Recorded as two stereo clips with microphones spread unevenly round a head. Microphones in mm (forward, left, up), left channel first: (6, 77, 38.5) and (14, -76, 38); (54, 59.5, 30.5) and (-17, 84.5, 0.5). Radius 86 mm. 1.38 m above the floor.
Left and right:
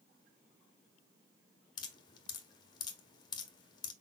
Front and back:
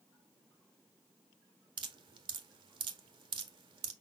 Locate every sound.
1.8 s dripping: 160° left, 0.8 m